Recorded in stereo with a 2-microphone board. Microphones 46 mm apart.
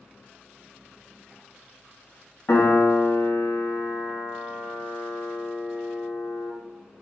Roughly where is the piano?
Left.